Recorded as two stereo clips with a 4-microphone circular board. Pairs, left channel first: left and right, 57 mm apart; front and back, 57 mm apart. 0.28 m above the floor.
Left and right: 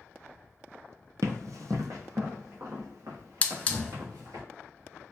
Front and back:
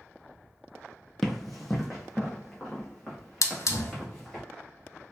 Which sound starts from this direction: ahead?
A hiss, at 3.4 s.